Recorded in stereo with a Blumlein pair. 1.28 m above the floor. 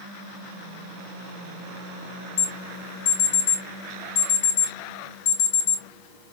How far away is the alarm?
About 2.5 m.